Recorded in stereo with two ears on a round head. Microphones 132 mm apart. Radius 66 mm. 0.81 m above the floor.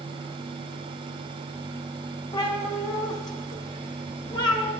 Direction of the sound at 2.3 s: 30° left (ahead or behind).